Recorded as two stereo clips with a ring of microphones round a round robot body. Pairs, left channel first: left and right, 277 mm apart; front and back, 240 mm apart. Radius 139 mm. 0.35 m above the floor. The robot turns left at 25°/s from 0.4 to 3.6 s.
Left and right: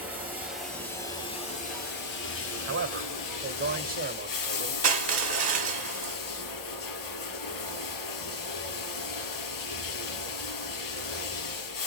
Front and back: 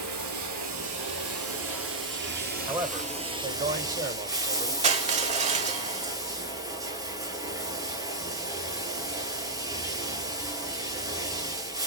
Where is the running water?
175° right, 4.5 m; by 11.9 s 105° left, 4.5 m.